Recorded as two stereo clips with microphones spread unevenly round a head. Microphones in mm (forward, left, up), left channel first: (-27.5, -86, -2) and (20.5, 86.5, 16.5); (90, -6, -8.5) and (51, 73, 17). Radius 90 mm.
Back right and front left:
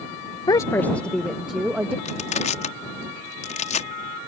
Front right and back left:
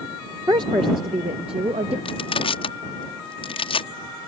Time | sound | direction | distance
0.5 | a woman speaking | 175° right | ?
2.0 | crushing | 50° right | ?